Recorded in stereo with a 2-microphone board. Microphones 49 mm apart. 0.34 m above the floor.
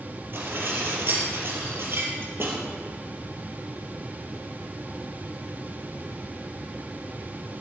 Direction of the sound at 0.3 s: 50° right (ahead or behind).